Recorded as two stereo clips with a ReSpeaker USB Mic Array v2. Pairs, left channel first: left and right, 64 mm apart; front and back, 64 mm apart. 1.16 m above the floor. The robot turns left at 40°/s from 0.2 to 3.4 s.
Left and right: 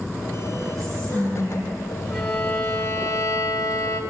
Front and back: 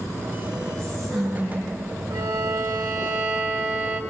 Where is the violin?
175° left, 1.8 m; by 4.0 s 125° left, 1.8 m.